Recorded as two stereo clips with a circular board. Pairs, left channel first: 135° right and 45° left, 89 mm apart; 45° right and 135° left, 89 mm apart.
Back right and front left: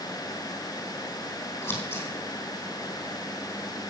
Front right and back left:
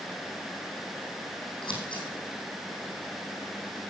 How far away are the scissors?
About 3.5 m.